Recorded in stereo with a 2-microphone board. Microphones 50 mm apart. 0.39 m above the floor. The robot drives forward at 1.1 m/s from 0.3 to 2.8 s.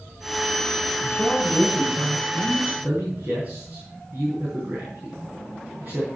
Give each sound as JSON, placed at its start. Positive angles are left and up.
{"t": 1.0, "sound": "a man speaking", "side_deg": -20, "distance_m": 6.5}